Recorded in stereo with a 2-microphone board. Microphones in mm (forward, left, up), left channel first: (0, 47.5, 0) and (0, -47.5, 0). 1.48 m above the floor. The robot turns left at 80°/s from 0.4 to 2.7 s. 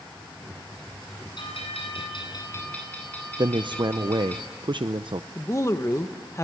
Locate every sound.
1.4 s a bell: 125° left, 9.5 m; by 4.4 s 15° left, 9.5 m
3.4 s a man speaking: 55° right (ahead or behind), 0.6 m
5.3 s a woman speaking: 30° left (ahead or behind), 1.2 m